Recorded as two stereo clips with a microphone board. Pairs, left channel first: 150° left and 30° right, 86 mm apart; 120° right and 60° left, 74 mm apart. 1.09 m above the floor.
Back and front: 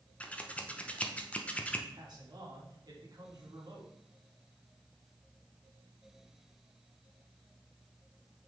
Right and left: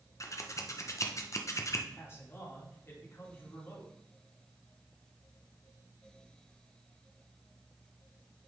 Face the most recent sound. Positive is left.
turn(degrees=-65)